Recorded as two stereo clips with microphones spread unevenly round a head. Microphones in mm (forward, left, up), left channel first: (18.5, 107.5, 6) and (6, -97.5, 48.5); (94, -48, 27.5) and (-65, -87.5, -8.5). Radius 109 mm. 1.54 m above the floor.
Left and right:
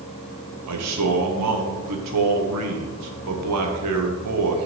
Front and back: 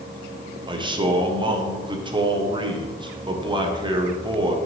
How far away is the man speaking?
About 1.4 m.